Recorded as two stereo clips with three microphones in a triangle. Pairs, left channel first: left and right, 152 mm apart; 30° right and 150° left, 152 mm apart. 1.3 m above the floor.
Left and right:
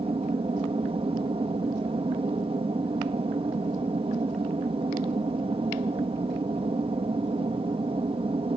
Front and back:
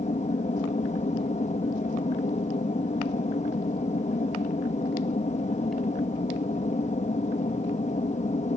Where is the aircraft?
50° right.